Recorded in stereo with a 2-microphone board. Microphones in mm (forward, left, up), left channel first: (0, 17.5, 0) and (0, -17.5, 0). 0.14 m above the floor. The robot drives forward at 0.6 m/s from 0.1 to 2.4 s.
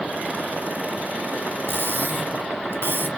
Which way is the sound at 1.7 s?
65° right (ahead or behind).